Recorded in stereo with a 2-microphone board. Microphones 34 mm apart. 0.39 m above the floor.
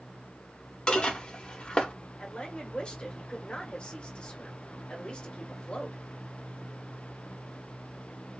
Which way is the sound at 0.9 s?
30° left (ahead or behind).